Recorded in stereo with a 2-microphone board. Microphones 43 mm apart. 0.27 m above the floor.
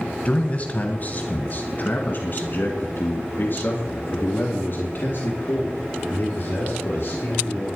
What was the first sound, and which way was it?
A man speaking, 30° left (ahead or behind).